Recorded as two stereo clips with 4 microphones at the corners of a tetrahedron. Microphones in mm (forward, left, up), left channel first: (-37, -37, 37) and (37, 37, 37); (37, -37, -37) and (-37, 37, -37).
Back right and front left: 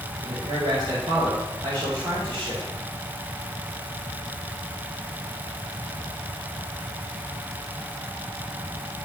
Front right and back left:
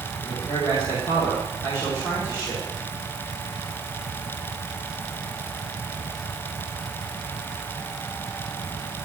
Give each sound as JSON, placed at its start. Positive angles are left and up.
{"t": 0.2, "sound": "a man speaking", "azimuth_deg": 5, "distance_m": 2.5}